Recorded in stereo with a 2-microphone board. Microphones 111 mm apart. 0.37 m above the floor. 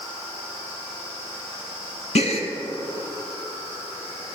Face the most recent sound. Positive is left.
turn(degrees=70)  # may be behind; listen again after turning